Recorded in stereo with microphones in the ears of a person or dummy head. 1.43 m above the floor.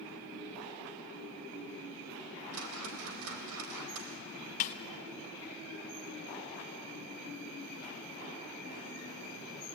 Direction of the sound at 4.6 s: 45° left (ahead or behind).